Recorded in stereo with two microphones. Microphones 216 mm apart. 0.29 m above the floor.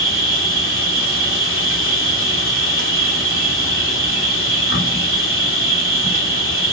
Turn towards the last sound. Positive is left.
turn(degrees=70)  # may be behind; listen again after turning